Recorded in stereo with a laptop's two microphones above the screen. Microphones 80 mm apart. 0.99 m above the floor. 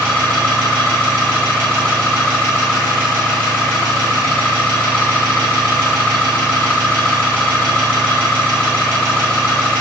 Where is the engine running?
10° left (ahead or behind), 0.9 m.